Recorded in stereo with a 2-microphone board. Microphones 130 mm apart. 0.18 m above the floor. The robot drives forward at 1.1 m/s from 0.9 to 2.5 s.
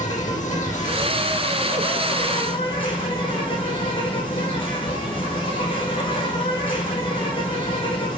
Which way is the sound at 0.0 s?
65° left (ahead or behind).